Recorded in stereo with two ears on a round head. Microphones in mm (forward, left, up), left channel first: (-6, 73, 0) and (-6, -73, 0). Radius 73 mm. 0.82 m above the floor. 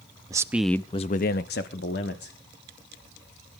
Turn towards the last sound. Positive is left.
turn(degrees=65)  # may be behind; listen again after turning